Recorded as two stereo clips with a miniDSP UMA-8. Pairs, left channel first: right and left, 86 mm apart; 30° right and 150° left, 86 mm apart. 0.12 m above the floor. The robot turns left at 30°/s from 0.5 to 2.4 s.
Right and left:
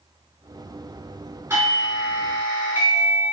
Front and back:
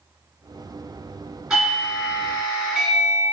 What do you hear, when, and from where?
1.5 s a doorbell: 75° left, 1.7 m; by 3.2 s 50° left, 1.7 m